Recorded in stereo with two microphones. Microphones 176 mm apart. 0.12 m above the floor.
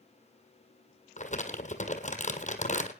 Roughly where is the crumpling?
Left.